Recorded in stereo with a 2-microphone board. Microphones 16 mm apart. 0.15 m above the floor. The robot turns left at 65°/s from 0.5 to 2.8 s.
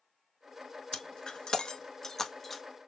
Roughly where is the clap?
No clap in this recording.